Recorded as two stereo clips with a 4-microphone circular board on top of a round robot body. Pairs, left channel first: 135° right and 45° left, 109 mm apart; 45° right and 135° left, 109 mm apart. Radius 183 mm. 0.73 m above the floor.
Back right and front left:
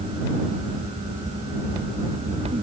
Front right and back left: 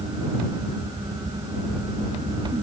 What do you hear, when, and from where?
Only background noise.